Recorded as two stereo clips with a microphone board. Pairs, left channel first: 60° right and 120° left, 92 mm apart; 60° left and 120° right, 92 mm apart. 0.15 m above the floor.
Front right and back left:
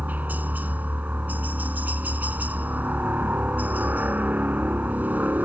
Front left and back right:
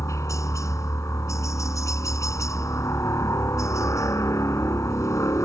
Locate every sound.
0.0 s a helicopter: 65° left